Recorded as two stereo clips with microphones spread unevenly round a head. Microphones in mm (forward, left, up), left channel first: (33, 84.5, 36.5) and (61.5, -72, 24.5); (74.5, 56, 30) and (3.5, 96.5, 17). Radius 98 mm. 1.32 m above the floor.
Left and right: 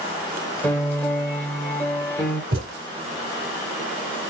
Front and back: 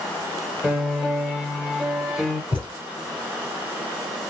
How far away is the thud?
About 2.5 m.